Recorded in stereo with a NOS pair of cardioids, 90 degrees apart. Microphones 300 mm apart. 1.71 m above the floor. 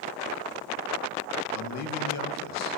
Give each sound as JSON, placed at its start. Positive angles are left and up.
{"t": 1.5, "sound": "a man speaking", "azimuth_deg": 60, "distance_m": 2.5}